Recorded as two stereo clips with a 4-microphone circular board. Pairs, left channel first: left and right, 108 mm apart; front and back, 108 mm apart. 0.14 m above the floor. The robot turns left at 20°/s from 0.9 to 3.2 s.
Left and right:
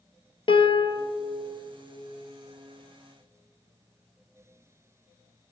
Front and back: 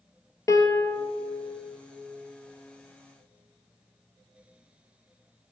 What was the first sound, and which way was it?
A piano, 60° left.